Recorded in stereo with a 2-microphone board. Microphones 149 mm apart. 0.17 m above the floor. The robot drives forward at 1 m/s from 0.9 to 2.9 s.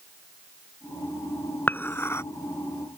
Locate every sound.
1.7 s dishes clattering: 15° left (ahead or behind); by 2.2 s 20° left (ahead or behind)